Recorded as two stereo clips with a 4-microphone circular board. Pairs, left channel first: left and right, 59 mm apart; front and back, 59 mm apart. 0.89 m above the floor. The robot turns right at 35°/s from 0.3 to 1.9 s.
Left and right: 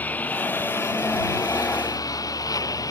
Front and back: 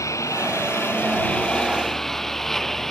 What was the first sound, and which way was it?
A lawn mower, 30° left.